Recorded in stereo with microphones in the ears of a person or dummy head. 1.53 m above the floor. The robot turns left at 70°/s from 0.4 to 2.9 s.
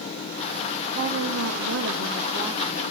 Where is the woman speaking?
55° right, 1.3 m; by 2.8 s 170° left, 1.3 m.